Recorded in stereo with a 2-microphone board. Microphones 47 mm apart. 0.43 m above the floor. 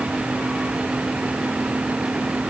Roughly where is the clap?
I don't hear a clap.